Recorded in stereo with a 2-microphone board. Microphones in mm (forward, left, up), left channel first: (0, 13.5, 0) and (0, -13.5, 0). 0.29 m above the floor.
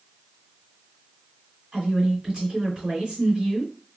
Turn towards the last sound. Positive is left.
turn(degrees=-25)  # may be behind; listen again after turning